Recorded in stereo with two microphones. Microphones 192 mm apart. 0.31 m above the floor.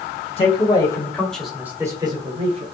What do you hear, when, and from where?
0.4 s a man speaking: 30° left (ahead or behind), 1.3 m; by 2.6 s 35° right (ahead or behind), 1.3 m